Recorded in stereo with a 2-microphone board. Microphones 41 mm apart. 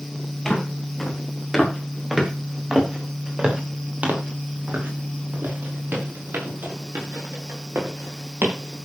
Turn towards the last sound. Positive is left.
turn(degrees=-75)  # may be behind; listen again after turning